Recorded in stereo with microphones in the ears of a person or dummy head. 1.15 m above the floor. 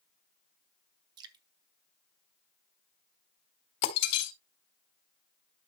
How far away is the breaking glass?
About 3 m.